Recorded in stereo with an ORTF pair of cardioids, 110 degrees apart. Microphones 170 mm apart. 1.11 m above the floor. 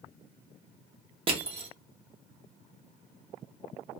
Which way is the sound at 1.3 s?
30° right.